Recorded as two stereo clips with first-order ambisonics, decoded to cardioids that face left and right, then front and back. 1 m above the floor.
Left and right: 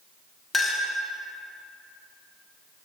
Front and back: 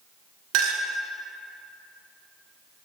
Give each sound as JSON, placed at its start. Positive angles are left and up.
{"t": 0.5, "sound": "a clink", "azimuth_deg": 170, "distance_m": 0.6}